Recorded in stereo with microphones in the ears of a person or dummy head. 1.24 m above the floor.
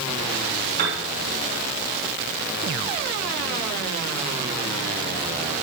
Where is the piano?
50° right (ahead or behind), 3 m.